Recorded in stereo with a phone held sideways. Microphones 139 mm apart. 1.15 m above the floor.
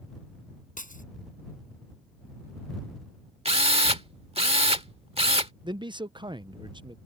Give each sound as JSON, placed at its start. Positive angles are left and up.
{"t": 0.8, "sound": "breaking glass", "side_deg": 75}
{"t": 3.5, "sound": "a drill", "side_deg": -45}
{"t": 5.6, "sound": "a man speaking", "side_deg": -35}